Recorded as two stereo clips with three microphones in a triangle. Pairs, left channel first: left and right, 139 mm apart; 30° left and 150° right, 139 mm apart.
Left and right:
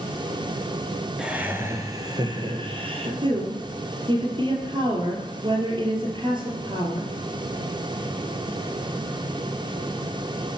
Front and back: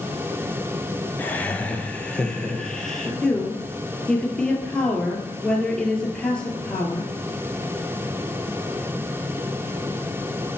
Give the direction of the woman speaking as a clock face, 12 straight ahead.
2 o'clock.